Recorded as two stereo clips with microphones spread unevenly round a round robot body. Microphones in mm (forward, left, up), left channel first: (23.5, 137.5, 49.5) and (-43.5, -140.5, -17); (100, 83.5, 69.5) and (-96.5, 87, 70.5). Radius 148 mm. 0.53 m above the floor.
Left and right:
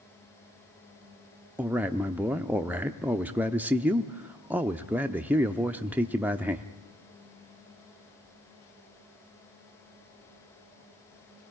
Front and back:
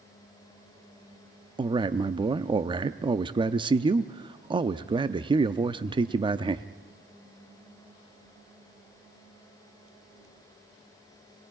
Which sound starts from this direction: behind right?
A man speaking, at 1.6 s.